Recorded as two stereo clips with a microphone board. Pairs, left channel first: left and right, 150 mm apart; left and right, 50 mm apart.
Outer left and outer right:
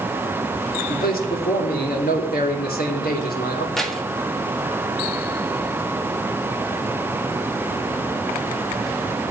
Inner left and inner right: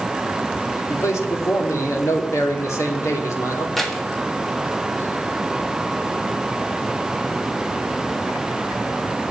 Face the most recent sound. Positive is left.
turn(degrees=5)  # may be behind; listen again after turning